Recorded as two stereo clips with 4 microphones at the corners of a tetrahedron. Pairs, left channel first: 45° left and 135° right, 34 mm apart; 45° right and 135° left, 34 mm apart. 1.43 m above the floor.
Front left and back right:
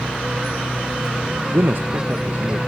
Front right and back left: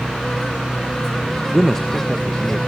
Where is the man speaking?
140° right, 0.7 m; by 2.6 s 110° right, 1.5 m.